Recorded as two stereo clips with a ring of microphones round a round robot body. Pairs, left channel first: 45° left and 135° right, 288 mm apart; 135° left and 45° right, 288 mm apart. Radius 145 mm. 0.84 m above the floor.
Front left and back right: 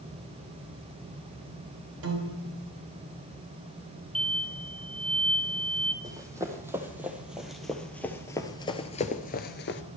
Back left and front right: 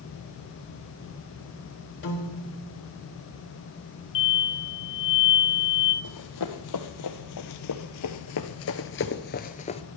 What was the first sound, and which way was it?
A piano, 175° right.